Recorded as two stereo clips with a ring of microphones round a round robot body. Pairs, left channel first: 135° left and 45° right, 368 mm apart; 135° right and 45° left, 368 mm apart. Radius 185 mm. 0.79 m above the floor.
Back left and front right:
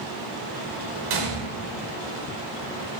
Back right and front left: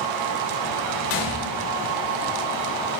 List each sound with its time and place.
1.1 s a gunshot: 80° right, 1.3 m